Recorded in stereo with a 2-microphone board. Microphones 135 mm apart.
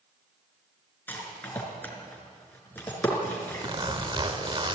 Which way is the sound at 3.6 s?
40° right (ahead or behind).